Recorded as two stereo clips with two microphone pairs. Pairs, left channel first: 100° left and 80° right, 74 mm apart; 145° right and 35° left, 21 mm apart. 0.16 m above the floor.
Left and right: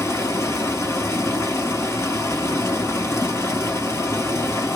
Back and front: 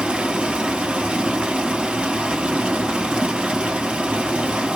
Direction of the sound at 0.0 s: 55° left.